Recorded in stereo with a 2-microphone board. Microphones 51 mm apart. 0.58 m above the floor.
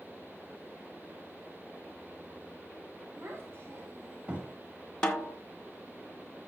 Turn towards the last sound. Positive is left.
turn(degrees=15)  # may be behind; listen again after turning